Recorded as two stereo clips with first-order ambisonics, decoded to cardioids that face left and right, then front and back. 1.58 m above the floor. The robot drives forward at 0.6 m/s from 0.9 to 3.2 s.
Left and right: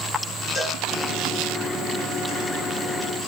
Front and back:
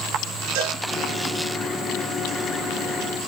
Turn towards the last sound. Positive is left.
turn(degrees=175)